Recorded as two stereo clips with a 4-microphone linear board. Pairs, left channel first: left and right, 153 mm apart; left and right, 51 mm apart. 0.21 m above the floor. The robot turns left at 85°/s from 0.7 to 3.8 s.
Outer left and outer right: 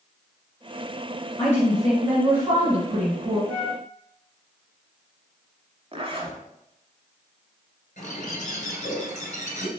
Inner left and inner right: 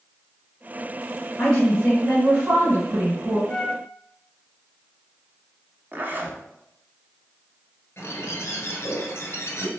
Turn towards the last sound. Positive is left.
turn(degrees=55)  # may be behind; listen again after turning